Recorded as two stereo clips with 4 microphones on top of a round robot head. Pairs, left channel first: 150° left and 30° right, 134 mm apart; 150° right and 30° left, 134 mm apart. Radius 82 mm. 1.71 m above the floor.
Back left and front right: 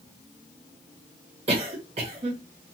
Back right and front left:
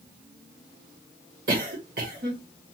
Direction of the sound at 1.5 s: 10° left.